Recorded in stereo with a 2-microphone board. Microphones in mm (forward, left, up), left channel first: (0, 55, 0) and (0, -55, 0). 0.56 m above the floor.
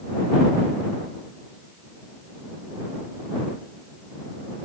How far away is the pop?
I don't hear a pop.